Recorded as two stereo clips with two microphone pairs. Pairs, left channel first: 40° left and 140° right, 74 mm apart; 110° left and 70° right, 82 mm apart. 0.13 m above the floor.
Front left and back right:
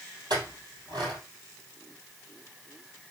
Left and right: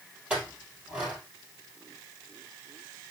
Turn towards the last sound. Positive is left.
turn(degrees=-145)